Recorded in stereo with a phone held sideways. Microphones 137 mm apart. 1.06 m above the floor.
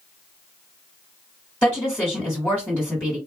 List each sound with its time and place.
1.6 s a woman speaking: 10° left (ahead or behind), 1.6 m